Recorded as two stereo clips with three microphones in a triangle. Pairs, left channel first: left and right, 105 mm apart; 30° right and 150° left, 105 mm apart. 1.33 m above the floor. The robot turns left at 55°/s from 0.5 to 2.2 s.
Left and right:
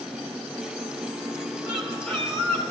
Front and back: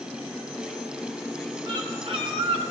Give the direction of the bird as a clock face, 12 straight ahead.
6 o'clock.